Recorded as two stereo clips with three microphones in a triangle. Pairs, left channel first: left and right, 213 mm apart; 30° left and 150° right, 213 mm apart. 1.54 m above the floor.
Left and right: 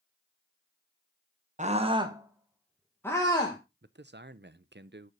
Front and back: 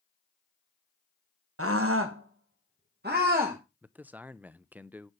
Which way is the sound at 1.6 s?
150° right.